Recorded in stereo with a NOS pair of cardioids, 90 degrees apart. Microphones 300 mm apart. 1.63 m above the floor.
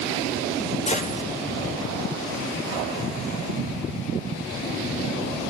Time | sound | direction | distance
0.9 | a gunshot | 20° left | 5.5 m